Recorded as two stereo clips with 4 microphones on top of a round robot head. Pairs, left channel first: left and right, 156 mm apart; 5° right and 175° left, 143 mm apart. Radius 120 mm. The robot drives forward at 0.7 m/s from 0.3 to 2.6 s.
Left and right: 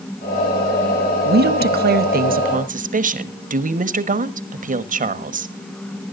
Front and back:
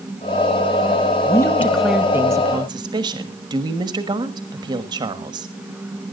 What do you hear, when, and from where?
1.2 s a woman speaking: 75° right, 1.1 m; by 5.5 s 125° right, 1.3 m